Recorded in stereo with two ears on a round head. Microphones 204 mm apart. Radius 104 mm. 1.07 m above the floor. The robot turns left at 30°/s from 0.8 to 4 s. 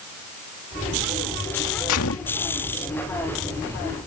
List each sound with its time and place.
1.9 s a gunshot: 70° left (ahead or behind); by 2.4 s 55° left (ahead or behind)